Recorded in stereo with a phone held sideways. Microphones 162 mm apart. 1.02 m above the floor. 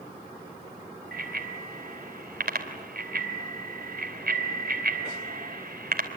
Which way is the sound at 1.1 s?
70° right (ahead or behind).